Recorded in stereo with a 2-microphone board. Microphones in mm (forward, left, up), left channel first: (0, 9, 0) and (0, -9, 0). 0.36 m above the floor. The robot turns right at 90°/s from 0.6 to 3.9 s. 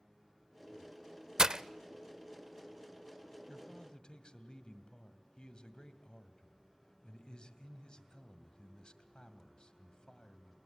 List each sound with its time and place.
1.4 s breaking glass: 30° right (ahead or behind), 0.5 m
3.5 s a man speaking: 35° left, 2 m; by 10.6 s 75° left, 2 m